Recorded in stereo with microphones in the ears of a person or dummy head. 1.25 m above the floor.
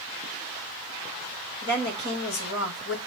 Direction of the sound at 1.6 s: 65° left (ahead or behind).